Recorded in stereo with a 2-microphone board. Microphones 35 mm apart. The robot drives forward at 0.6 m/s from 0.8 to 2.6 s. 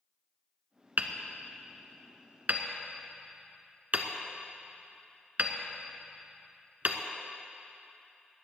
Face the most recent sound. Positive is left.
turn(degrees=-55)  # may be behind; listen again after turning